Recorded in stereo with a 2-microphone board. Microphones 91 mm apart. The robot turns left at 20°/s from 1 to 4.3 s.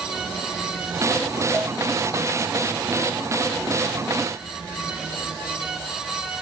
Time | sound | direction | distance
1.5 | a cowbell | 5° left (ahead or behind) | 1.1 m